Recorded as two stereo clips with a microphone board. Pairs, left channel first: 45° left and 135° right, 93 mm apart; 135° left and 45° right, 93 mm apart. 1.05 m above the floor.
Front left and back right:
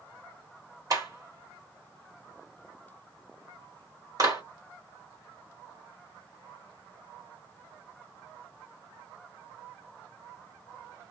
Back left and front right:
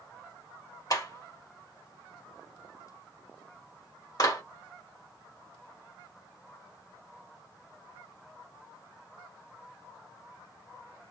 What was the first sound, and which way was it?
A clap, straight behind.